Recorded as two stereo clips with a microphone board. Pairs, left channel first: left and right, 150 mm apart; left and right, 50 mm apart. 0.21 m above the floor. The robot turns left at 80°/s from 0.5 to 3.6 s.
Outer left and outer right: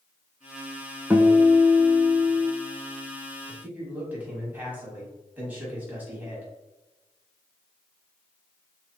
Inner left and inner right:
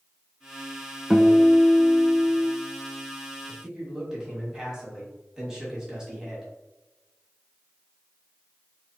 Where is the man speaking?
15° right (ahead or behind), 1.4 m; by 6.5 s 10° right (ahead or behind), 1.4 m.